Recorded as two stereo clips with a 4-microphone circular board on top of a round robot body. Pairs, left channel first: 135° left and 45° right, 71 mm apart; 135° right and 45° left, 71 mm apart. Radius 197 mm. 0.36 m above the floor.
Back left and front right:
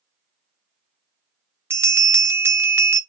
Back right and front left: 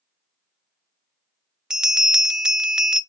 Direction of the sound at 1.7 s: 30° right.